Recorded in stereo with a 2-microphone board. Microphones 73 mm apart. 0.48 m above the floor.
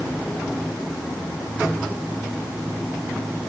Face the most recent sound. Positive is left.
No sound to turn to.